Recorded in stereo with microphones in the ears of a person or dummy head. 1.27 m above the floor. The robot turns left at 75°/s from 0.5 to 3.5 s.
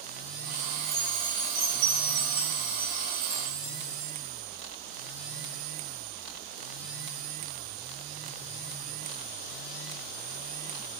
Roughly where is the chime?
Ahead.